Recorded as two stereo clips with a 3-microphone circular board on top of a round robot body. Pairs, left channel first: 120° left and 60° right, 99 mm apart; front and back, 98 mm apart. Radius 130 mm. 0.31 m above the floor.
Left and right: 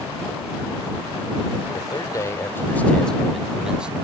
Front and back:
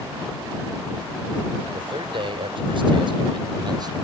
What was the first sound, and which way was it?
A man speaking, 160° left.